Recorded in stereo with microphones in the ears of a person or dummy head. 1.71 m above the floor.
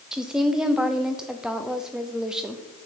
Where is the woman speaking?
Centre (ahead or behind), 0.7 m.